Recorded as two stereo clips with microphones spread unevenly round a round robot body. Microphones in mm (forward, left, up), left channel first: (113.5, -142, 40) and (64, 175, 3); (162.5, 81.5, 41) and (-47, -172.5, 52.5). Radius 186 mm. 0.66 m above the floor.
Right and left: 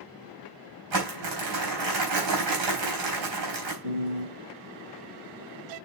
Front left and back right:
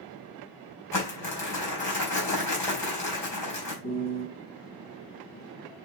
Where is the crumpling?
130° left, 3.5 m.